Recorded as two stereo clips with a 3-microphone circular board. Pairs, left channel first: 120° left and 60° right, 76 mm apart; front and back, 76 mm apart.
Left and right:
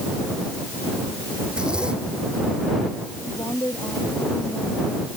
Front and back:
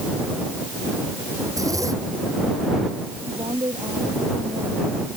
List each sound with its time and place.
1.5 s a zipper: 140° right
3.3 s a woman speaking: 170° left